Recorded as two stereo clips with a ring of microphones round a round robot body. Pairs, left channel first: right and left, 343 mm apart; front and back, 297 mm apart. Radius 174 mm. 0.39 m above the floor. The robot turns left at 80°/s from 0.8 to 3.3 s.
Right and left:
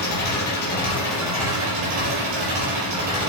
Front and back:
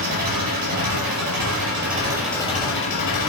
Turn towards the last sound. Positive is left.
turn(degrees=10)